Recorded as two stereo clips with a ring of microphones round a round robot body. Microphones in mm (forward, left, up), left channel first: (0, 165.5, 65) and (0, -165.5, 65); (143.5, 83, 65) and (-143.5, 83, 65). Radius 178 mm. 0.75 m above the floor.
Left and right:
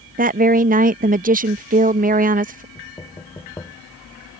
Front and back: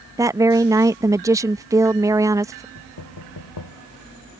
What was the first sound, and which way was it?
A woman speaking, 115° right.